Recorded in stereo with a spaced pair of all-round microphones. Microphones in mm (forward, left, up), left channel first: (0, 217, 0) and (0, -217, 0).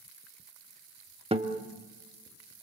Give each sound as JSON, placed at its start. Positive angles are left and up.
{"t": 1.3, "sound": "a guitar", "side_deg": -15, "distance_m": 1.3}